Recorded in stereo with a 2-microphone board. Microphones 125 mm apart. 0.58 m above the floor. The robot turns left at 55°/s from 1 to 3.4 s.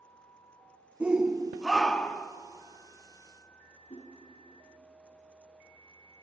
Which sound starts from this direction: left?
A whoosh, at 3.9 s.